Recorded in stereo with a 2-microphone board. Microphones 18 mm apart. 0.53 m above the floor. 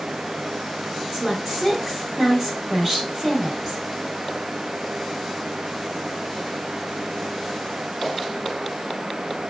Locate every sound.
1.1 s a woman speaking: 25° right (ahead or behind), 1.5 m